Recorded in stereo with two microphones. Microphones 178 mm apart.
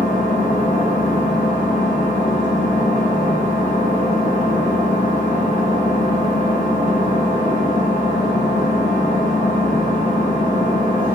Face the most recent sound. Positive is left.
turn(degrees=45)  # may be behind; listen again after turning